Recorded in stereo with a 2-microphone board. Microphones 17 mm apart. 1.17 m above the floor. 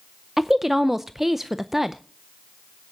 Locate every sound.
0.4 s a woman speaking: 15° right (ahead or behind), 0.5 m